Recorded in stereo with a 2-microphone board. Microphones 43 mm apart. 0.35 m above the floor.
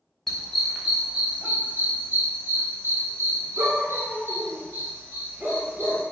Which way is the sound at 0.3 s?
5° left (ahead or behind).